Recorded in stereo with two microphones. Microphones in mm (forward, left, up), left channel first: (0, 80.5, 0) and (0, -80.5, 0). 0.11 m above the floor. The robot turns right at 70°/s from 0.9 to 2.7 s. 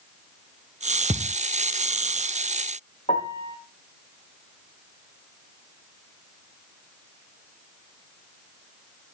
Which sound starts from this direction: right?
A thud, at 1.1 s.